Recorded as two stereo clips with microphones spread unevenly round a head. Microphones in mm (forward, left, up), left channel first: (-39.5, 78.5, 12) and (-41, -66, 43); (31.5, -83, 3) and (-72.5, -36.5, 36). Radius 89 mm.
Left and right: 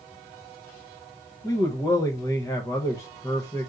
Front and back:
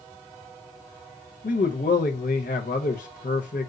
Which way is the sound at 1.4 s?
15° left.